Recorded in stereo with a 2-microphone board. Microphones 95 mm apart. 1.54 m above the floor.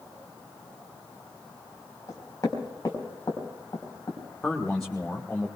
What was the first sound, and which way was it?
Knocking, 35° left (ahead or behind).